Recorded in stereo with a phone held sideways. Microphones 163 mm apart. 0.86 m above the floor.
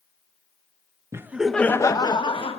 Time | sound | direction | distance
1.1 | laughter | 15° right (ahead or behind) | 0.8 m